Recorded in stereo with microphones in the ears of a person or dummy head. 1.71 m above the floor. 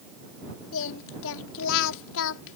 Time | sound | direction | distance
0.7 | singing | 75° left (ahead or behind) | ?